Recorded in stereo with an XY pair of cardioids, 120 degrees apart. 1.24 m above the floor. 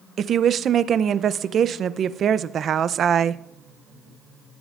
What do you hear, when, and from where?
0.2 s a woman speaking: 45° right, 0.5 m